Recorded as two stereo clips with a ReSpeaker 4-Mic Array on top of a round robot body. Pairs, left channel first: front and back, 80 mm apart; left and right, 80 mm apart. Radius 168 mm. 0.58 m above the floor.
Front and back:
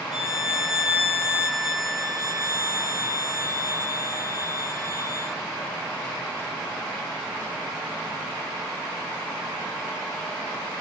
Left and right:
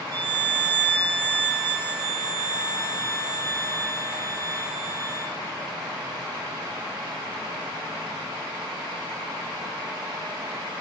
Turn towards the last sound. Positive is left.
turn(degrees=-140)